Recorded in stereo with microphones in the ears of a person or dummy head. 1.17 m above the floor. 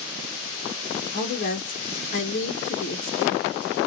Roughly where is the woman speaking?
Left.